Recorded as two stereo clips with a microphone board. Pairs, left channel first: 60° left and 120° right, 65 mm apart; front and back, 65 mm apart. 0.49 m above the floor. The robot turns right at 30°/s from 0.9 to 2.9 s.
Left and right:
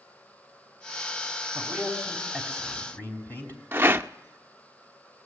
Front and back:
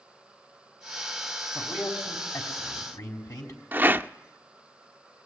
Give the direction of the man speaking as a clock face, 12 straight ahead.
1 o'clock.